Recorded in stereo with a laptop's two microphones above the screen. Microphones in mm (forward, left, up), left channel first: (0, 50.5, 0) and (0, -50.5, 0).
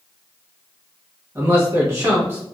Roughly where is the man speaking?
Right.